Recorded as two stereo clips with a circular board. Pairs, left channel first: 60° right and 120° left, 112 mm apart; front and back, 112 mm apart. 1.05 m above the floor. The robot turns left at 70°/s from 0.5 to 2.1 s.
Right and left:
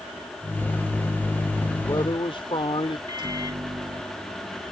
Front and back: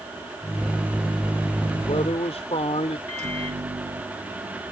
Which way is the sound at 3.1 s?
170° left.